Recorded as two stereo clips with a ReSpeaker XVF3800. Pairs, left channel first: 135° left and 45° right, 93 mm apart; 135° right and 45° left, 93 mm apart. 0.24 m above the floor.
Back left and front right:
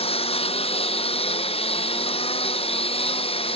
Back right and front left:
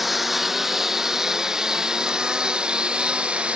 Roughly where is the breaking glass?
I don't hear breaking glass.